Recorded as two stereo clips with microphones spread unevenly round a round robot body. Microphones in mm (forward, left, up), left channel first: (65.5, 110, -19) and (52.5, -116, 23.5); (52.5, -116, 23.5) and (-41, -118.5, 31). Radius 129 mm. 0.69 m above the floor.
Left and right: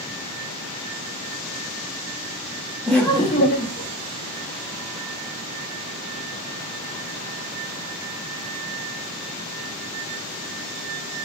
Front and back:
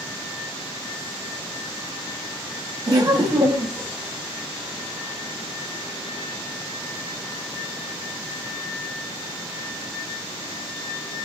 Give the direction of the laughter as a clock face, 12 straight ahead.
6 o'clock.